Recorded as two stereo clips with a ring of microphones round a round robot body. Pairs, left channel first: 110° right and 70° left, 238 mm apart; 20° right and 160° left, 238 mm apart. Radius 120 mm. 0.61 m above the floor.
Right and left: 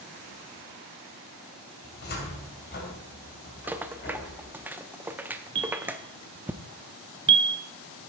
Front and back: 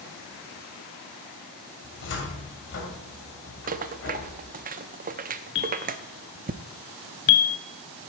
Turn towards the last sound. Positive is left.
turn(degrees=5)